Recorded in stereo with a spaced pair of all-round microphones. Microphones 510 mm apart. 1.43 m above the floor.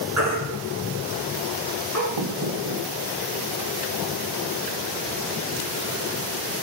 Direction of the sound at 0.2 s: 30° right (ahead or behind).